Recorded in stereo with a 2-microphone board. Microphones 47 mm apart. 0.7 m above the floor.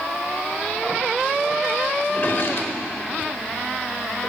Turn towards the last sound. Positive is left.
turn(degrees=50)  # may be behind; listen again after turning